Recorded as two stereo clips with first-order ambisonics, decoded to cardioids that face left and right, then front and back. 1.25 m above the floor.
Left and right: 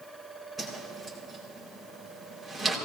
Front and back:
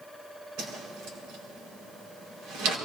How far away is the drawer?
No drawer in this recording.